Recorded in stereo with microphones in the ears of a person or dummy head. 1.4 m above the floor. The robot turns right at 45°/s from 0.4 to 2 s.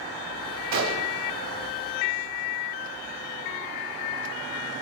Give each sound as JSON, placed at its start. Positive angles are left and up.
{"t": 0.7, "sound": "a gunshot", "side_deg": -70, "distance_m": 1.5}